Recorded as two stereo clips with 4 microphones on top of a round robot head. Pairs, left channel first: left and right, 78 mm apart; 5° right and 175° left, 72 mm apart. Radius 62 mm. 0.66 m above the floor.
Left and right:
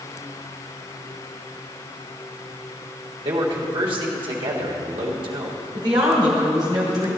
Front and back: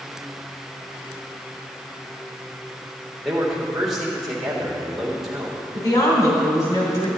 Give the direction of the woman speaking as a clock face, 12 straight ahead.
2 o'clock.